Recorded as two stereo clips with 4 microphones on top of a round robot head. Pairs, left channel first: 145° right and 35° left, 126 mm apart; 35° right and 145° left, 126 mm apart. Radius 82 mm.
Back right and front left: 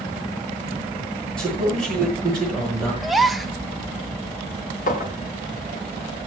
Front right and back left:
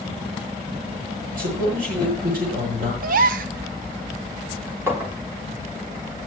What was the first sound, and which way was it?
A man speaking, 130° left.